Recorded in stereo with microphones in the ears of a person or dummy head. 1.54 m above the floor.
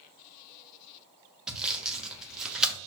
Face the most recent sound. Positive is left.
turn(degrees=-10)  # may be behind; listen again after turning